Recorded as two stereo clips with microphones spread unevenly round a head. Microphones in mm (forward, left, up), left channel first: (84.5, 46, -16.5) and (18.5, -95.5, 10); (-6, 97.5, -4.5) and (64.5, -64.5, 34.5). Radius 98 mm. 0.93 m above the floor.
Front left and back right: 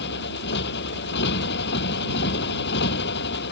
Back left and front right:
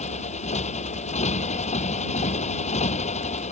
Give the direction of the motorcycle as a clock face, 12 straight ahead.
10 o'clock.